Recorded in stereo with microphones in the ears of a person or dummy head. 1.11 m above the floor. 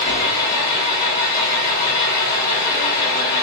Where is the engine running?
50° left (ahead or behind), 1.5 m.